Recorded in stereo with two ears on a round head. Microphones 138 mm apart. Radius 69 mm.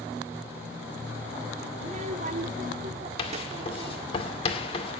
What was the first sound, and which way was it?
A child speaking, 35° right (ahead or behind).